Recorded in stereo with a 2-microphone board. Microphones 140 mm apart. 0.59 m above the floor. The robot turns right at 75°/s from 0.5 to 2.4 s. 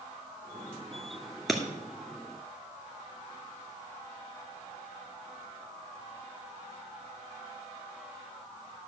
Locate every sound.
1.5 s breaking glass: centre (ahead or behind), 1.9 m; by 1.6 s 10° left (ahead or behind), 1.9 m